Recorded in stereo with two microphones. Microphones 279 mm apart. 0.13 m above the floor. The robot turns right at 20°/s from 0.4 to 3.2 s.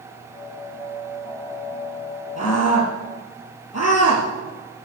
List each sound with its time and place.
2.4 s a scream: 65° left (ahead or behind), 3.5 m; by 4.9 s 60° left (ahead or behind), 3.5 m